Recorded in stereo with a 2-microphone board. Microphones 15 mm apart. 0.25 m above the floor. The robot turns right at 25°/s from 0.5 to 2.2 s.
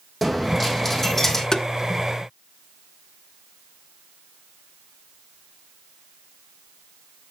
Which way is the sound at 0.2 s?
10° left (ahead or behind).